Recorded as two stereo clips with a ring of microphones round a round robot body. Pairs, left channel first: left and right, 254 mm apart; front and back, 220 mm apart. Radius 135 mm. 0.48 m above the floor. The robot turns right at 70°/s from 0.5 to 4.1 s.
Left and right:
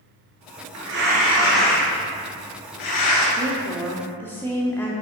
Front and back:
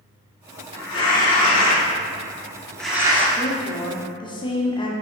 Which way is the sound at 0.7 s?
60° right.